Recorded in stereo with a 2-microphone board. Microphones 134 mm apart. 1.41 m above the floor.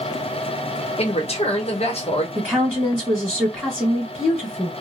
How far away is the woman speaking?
About 1.4 m.